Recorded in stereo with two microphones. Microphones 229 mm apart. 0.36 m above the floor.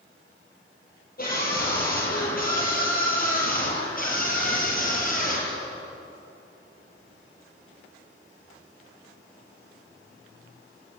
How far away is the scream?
About 10 m.